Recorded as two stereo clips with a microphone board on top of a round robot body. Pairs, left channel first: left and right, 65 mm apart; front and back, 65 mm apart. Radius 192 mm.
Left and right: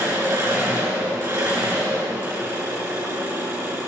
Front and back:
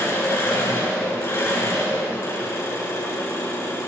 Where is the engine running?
50° right, 5 m.